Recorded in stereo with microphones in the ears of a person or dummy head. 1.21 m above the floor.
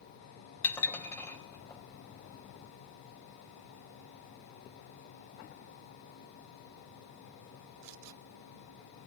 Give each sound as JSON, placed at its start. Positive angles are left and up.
{"t": 0.6, "sound": "dishes clattering", "side_deg": 20, "distance_m": 4.5}